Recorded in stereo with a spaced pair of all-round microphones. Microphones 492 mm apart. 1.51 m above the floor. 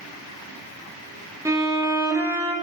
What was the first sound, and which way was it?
A violin, 5° right (ahead or behind).